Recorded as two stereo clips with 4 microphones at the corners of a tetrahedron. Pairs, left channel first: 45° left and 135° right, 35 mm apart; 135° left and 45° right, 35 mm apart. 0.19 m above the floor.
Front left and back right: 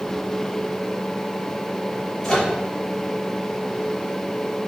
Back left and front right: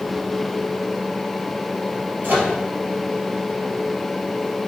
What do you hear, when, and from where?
2.2 s a microwave: 20° right, 3.5 m